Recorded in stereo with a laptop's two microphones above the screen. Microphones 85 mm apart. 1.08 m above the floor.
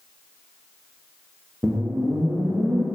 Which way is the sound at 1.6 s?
25° right (ahead or behind).